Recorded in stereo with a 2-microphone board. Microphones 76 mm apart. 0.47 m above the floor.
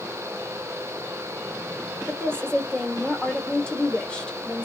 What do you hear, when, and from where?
2.1 s a woman speaking: 10° left (ahead or behind), 1.2 m